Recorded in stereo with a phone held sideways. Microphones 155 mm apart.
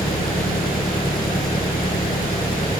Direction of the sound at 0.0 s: 70° left (ahead or behind).